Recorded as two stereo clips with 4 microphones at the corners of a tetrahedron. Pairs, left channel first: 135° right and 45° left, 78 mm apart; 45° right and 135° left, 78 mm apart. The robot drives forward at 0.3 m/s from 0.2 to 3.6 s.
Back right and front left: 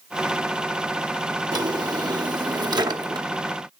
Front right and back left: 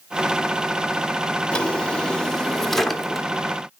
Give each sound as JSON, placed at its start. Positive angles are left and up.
{"t": 1.5, "sound": "a drawer", "azimuth_deg": 30, "distance_m": 1.2}